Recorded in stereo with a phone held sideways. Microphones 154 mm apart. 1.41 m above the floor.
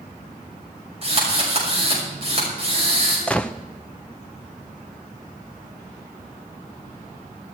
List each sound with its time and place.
1.0 s a drill: 40° right (ahead or behind), 6 m
3.3 s a gunshot: 10° left (ahead or behind), 0.6 m